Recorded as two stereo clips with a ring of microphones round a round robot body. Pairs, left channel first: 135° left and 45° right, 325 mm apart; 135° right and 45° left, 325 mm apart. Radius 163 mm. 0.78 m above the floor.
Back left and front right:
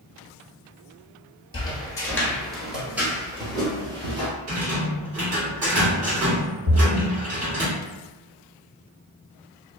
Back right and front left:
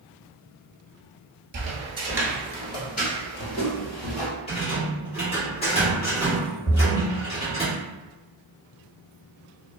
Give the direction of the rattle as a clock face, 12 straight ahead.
2 o'clock.